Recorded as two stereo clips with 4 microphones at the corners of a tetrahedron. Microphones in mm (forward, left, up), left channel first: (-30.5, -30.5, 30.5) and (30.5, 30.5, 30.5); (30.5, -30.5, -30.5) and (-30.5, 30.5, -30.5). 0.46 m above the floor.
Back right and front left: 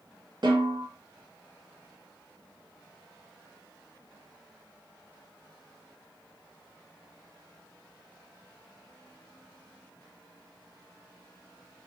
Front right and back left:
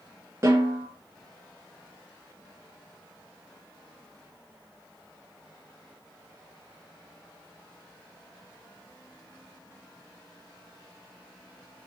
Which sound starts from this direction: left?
A snare drum, at 0.4 s.